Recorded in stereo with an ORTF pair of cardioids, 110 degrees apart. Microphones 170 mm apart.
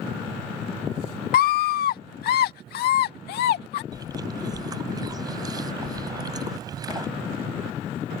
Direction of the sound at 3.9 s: 25° right.